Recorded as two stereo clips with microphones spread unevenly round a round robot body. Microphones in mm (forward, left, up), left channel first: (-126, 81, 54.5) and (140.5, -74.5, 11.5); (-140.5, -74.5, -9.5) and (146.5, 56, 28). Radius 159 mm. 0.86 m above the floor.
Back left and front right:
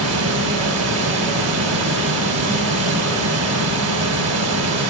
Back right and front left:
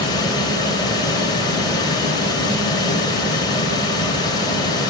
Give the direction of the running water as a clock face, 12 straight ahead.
3 o'clock.